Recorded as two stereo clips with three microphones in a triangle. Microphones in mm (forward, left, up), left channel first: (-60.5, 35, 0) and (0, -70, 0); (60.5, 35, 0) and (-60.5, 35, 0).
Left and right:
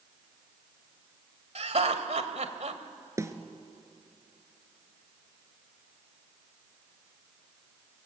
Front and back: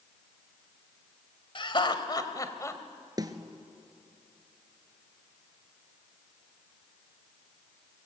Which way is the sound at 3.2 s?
125° right.